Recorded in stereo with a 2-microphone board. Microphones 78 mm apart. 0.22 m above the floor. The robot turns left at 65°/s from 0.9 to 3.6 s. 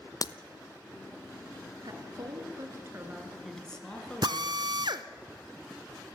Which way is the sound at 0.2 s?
50° left (ahead or behind).